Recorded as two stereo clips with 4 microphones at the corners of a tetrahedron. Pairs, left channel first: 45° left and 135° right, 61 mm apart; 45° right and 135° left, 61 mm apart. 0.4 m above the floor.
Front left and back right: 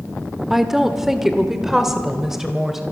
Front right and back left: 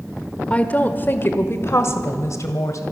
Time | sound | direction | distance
0.5 | a woman speaking | 55° right | 1.2 m